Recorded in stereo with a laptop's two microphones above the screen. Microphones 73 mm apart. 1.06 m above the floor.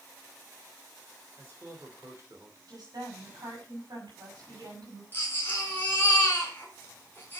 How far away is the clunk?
No clunk in this recording.